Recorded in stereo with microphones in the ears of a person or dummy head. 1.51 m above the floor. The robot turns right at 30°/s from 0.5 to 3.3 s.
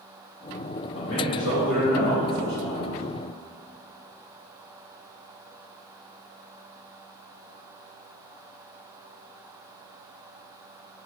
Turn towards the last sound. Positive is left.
turn(degrees=160)